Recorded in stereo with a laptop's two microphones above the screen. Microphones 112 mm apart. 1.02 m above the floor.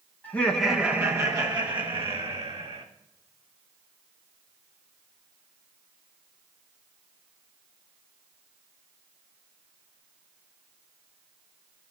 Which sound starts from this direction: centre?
Laughter, at 0.2 s.